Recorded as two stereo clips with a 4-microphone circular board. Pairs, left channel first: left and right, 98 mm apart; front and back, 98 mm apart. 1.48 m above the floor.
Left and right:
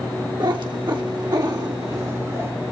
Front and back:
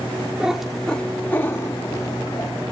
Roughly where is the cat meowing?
Right.